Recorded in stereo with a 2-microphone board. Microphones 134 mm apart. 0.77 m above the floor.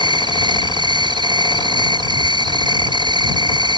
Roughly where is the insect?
Right.